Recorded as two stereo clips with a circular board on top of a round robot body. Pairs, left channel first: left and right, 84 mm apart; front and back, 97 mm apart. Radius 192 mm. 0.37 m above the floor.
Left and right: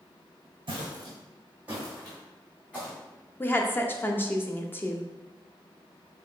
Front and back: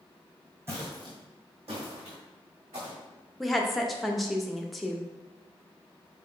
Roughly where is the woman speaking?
Left.